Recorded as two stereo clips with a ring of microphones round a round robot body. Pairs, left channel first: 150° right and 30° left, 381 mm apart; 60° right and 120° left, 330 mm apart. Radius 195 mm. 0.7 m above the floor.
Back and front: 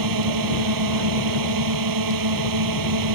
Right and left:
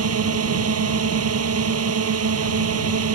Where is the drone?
70° left.